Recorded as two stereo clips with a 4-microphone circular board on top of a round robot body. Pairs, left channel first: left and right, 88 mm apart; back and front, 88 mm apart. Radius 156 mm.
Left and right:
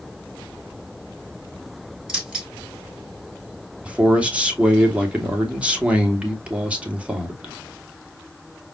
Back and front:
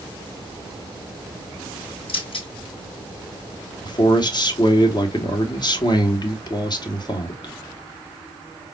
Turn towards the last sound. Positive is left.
turn(degrees=-165)